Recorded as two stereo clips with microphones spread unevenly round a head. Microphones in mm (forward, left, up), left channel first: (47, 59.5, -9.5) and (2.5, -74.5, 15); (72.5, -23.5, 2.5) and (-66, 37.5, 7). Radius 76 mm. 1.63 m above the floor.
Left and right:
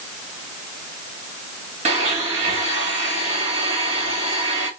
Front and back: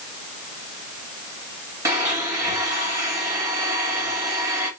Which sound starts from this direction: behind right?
A blender, at 1.9 s.